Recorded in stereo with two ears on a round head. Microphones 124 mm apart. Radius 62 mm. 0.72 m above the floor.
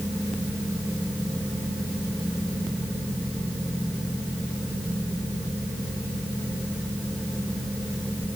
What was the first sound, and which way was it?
Only background noise.